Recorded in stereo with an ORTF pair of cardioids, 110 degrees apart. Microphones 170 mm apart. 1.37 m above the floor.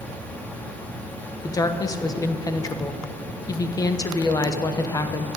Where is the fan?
10° left, 1.9 m.